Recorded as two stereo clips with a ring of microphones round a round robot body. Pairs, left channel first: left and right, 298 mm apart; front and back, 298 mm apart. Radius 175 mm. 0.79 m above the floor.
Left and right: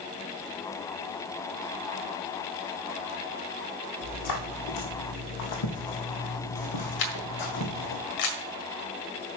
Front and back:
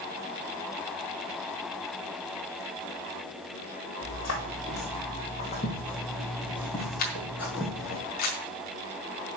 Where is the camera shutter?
65° left, 1.6 m.